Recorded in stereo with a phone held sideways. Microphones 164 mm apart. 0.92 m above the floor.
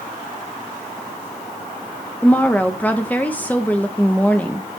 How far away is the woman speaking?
About 0.8 m.